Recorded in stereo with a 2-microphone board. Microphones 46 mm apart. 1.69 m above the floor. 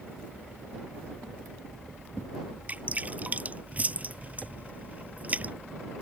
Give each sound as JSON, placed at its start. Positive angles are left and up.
{"t": 2.7, "sound": "dripping", "side_deg": -35}